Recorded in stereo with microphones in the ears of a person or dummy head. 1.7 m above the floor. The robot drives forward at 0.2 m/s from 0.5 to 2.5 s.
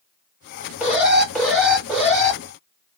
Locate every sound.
0.8 s an alarm: 5° right (ahead or behind), 2.5 m